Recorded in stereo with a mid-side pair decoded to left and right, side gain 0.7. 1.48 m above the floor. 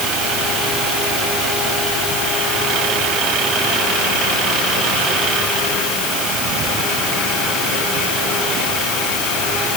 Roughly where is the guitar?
No guitar in this recording.